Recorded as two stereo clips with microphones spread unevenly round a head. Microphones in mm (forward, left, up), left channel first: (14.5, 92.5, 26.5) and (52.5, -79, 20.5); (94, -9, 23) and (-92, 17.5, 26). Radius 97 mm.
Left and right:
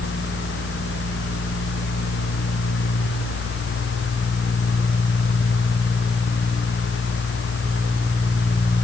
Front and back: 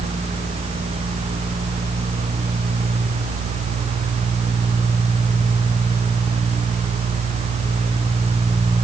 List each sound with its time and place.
Only background noise.